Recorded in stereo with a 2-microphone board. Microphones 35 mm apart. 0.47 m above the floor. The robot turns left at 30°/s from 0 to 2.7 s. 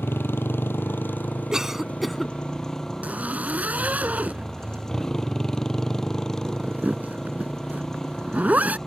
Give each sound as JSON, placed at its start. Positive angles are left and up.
{"t": 0.0, "sound": "a motorcycle", "azimuth_deg": 95}
{"t": 1.5, "sound": "a cough", "side_deg": -15}
{"t": 3.0, "sound": "a zipper", "side_deg": -45}